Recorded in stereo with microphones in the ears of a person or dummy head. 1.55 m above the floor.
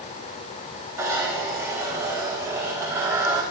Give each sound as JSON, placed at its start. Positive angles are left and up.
{"t": 1.0, "sound": "a zipper", "side_deg": -15, "distance_m": 3.5}